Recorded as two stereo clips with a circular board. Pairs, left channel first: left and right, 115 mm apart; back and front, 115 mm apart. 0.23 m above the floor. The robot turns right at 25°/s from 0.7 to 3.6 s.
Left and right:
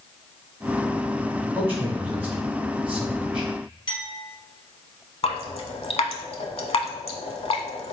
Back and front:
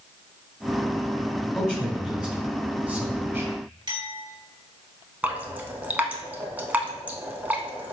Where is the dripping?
75° left, 0.6 m.